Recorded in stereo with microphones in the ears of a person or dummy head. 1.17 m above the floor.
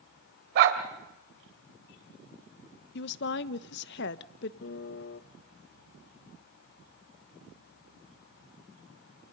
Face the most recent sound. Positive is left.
turn(degrees=60)  # may be behind; listen again after turning